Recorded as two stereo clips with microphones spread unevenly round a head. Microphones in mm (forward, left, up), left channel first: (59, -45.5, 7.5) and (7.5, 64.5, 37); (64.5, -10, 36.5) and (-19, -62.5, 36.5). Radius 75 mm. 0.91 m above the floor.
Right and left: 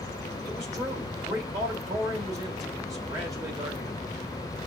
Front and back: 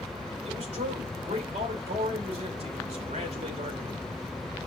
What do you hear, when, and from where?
0.5 s a man speaking: 175° right, 3 m